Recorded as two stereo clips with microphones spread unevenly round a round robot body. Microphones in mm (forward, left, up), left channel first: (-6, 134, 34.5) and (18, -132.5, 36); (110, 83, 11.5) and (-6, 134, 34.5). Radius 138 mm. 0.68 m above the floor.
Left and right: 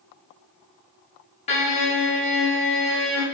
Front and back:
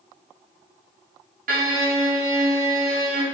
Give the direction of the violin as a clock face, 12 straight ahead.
7 o'clock.